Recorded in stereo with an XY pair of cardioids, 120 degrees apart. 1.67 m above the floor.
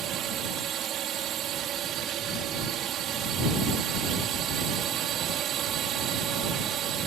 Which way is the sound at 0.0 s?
60° right.